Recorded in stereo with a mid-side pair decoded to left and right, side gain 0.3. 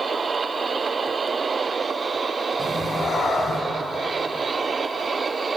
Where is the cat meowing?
50° left, 5 m; by 3.6 s 60° left, 5 m.